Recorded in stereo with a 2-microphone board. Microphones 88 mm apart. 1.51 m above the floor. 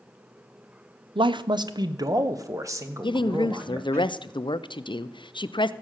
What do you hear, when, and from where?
1.1 s a man speaking: 65° right (ahead or behind), 0.6 m; by 4.0 s 25° right (ahead or behind), 1.9 m
3.0 s a woman speaking: 60° left (ahead or behind), 0.6 m